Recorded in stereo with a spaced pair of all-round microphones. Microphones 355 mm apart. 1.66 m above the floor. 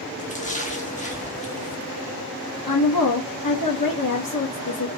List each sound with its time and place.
0.2 s a splash: 20° left (ahead or behind), 0.8 m
2.7 s a woman speaking: 75° left (ahead or behind), 1.1 m